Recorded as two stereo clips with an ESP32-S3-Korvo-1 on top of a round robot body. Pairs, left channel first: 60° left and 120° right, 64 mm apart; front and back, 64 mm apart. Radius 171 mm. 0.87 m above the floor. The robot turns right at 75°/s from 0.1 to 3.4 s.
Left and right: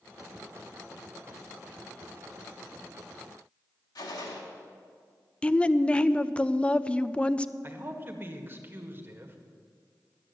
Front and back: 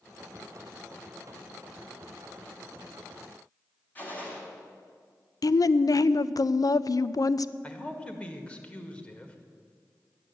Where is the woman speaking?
10° right, 0.5 m.